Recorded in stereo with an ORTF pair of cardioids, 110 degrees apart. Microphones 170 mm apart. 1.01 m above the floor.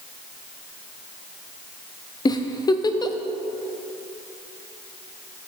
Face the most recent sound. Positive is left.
turn(degrees=25)